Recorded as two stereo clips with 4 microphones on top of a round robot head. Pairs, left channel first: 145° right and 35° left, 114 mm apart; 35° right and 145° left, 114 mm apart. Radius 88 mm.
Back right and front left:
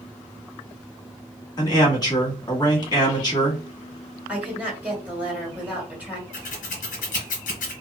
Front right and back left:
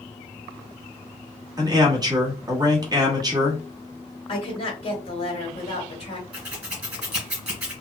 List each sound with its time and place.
1.6 s a man speaking: straight behind, 1.2 m
4.3 s a woman speaking: 40° right, 1.8 m
6.3 s scissors: 140° right, 1.2 m